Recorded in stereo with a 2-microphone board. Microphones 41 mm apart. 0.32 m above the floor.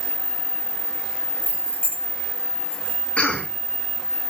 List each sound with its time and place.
1.4 s keys jangling: 45° right (ahead or behind), 1.5 m; by 3.0 s 55° right (ahead or behind), 2.5 m
3.2 s a cough: 30° left (ahead or behind), 2.5 m